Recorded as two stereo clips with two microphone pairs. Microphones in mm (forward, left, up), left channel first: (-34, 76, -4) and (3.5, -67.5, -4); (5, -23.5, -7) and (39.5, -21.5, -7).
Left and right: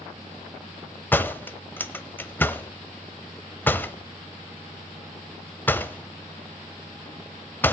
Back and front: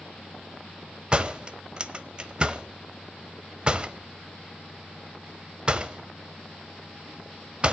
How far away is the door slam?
About 0.9 m.